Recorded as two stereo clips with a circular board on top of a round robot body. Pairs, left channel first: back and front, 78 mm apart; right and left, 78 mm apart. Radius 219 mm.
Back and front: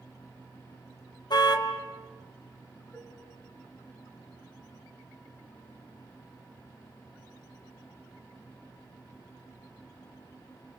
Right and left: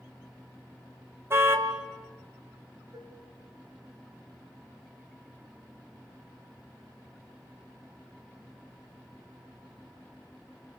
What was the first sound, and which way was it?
A car horn, 150° left.